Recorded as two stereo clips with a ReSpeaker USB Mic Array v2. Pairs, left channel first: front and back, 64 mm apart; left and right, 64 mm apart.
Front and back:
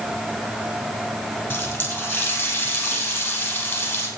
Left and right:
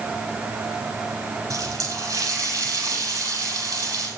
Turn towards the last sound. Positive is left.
turn(degrees=-65)